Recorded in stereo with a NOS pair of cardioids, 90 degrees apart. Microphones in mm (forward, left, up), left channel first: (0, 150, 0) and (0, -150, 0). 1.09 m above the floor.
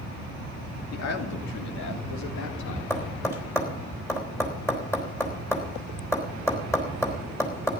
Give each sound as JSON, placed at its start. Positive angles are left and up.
{"t": 0.9, "sound": "a man speaking", "azimuth_deg": 55, "distance_m": 2.5}
{"t": 2.9, "sound": "tapping", "azimuth_deg": 10, "distance_m": 3.5}